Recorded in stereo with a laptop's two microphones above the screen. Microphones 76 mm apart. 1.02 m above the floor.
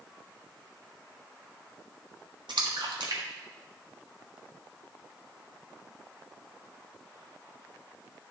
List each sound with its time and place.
2.5 s a splash: 80° right, 1.5 m